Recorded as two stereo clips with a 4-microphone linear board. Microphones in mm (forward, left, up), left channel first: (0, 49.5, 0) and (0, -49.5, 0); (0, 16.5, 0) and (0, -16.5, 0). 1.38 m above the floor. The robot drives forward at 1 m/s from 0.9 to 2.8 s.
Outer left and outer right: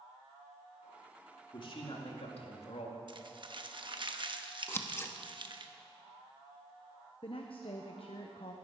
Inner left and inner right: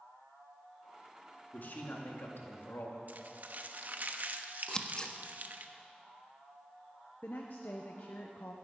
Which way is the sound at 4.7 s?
25° left (ahead or behind).